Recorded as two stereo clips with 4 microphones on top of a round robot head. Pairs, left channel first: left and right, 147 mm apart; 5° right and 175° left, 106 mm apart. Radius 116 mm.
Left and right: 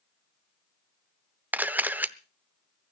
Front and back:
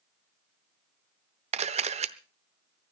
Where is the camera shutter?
170° right, 0.8 m.